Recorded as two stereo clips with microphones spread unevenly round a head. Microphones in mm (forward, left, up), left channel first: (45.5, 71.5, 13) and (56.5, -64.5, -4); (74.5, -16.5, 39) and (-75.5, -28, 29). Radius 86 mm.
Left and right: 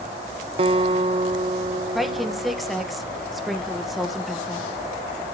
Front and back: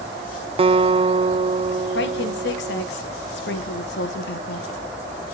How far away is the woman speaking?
About 1.5 m.